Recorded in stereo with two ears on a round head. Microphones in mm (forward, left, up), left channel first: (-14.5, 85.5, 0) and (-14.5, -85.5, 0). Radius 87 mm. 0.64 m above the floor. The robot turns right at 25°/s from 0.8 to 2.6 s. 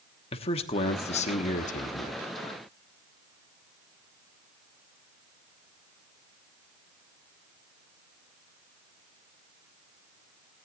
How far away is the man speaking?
About 1.1 m.